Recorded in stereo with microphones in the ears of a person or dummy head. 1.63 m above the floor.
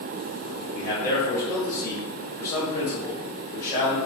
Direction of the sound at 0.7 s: 25° left (ahead or behind).